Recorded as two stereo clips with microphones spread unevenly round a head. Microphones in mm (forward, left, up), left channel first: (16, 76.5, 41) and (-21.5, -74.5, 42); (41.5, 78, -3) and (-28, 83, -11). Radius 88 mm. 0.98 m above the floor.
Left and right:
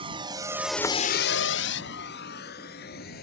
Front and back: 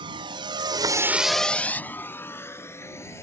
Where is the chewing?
No chewing in this recording.